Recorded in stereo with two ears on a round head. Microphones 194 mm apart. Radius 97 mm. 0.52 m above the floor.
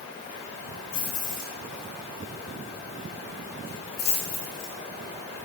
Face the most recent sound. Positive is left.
turn(degrees=65)  # may be behind; listen again after turning